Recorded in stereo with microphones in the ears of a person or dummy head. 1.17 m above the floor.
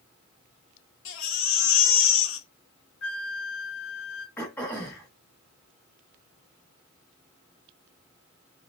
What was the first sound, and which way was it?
A baby crying, 70° left (ahead or behind).